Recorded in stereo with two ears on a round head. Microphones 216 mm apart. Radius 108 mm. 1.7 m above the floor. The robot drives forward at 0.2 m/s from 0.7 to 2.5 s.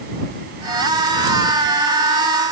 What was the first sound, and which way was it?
Only background noise.